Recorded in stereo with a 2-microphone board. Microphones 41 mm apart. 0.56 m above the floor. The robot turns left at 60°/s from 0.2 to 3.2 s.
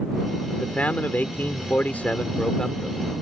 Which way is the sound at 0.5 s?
150° left.